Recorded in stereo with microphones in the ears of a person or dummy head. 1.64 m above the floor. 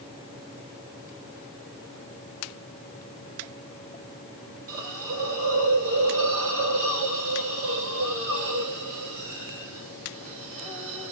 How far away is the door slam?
No door slam in this recording.